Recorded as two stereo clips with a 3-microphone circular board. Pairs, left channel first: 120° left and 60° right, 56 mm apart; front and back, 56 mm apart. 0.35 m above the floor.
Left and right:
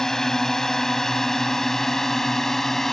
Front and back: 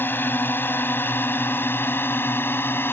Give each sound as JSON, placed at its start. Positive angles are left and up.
{"t": 0.0, "sound": "a drone", "azimuth_deg": 40}